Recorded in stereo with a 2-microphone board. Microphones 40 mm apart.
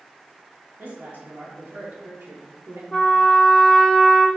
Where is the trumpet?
10° left (ahead or behind), 0.8 m.